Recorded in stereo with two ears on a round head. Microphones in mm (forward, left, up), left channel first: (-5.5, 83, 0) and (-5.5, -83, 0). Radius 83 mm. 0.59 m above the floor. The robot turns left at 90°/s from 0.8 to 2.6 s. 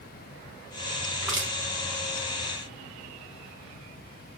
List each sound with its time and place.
1.2 s crushing: 5° left (ahead or behind), 2 m; by 1.5 s 20° right (ahead or behind), 2 m